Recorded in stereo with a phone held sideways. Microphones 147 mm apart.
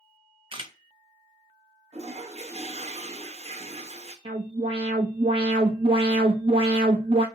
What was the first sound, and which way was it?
A camera shutter, 35° right (ahead or behind).